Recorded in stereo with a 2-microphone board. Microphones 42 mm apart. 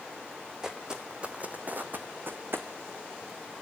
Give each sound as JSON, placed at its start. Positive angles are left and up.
{"t": 0.6, "sound": "footsteps", "side_deg": -15, "distance_m": 1.4}